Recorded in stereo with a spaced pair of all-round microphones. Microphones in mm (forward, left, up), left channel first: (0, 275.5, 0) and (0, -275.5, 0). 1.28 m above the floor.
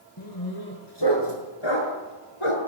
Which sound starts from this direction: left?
A dog barking, at 0.2 s.